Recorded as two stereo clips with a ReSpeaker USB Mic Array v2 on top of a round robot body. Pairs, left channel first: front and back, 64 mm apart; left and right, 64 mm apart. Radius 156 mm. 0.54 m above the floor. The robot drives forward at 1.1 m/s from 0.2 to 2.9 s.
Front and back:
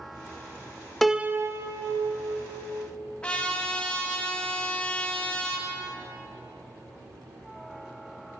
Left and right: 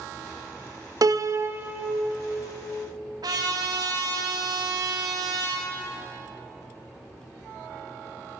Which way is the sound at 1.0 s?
85° right.